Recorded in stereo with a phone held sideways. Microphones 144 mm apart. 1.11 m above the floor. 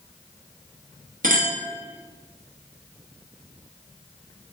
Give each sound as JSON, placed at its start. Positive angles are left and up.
{"t": 1.2, "sound": "a clink", "side_deg": -75, "distance_m": 0.9}